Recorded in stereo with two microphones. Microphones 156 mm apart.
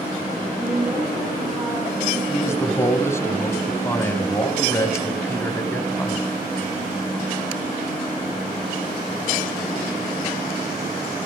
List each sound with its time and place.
0.6 s a woman speaking: 30° right (ahead or behind), 9 m
2.3 s a man speaking: 20° left (ahead or behind), 1.5 m